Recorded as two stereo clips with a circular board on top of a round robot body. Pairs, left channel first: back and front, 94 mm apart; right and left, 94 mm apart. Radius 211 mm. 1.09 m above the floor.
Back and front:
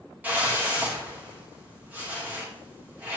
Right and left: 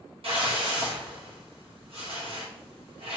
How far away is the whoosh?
About 1.6 m.